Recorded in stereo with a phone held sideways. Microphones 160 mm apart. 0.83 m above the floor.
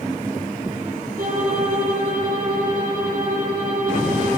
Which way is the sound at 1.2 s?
65° right (ahead or behind).